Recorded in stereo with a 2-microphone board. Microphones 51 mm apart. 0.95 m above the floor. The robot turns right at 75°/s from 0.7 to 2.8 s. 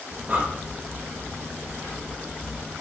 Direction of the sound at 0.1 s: 25° right (ahead or behind).